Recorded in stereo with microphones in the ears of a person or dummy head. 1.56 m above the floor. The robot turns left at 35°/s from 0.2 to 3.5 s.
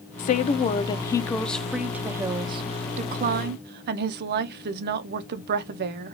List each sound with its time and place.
0.2 s a woman speaking: 50° left, 0.5 m; by 6.1 s 65° right, 0.5 m